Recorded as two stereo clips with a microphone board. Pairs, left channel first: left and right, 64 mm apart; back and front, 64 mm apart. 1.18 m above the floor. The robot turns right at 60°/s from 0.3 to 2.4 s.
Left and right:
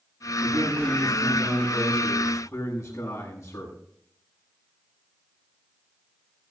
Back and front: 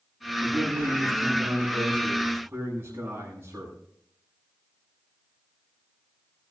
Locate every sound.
0.4 s a man speaking: 70° right, 9.5 m; by 3.7 s 50° left, 9.5 m